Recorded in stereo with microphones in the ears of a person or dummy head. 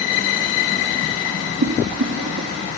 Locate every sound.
1.6 s boiling: 75° right (ahead or behind), 2.5 m